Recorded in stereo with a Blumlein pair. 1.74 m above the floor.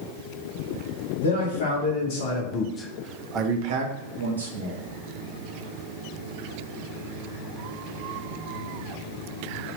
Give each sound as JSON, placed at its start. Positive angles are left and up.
{"t": 1.2, "sound": "a man speaking", "azimuth_deg": 65, "distance_m": 1.4}